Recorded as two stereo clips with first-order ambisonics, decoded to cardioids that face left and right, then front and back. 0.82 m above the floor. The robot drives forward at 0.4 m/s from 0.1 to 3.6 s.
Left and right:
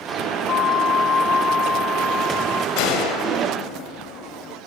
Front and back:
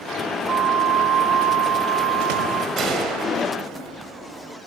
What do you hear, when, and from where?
0.5 s a flute: 130° left, 0.5 m; by 2.7 s 165° left, 1.2 m
2.8 s a gunshot: 115° left, 2 m; by 4.6 s 120° left, 2.5 m